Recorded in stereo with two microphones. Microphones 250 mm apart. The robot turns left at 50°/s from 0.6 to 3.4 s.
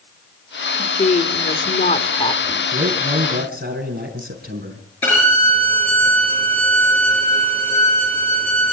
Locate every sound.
0.8 s a woman speaking: 120° left, 1.5 m; by 2.7 s 25° left, 1.5 m
2.7 s a man speaking: 105° right, 4.5 m; by 4.8 s 140° right, 4.5 m
5.0 s a violin: 10° left (ahead or behind), 6.5 m